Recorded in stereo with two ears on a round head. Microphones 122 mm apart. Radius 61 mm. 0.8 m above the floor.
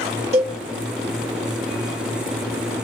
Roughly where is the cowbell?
Right.